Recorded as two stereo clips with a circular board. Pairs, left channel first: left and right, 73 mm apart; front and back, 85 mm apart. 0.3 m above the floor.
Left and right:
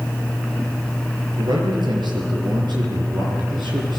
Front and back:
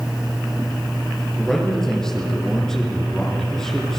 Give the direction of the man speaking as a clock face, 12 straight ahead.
3 o'clock.